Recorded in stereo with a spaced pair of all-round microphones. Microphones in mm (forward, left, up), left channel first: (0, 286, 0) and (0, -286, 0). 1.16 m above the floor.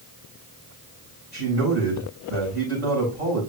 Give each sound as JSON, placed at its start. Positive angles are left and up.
{"t": 1.3, "sound": "a man speaking", "side_deg": -65, "distance_m": 7.0}